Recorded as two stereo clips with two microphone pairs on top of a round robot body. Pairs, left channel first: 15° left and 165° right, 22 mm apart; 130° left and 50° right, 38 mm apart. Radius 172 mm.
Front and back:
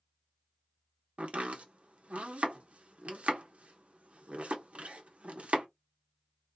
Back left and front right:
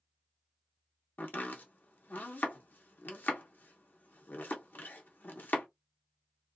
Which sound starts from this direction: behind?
Chopping, at 1.2 s.